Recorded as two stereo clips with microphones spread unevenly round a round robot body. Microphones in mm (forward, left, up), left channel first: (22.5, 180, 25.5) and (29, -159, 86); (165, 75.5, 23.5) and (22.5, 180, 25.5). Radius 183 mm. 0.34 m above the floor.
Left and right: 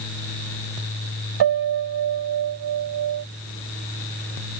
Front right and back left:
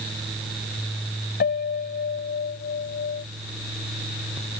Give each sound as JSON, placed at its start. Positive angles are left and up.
{"t": 1.4, "sound": "a piano", "azimuth_deg": -65}